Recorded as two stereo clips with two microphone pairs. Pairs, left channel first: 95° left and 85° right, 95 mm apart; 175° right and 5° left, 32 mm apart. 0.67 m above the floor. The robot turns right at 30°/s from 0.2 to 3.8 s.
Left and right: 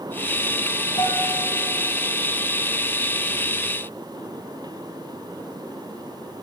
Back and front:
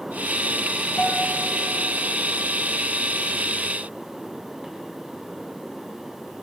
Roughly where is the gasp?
No gasp in this recording.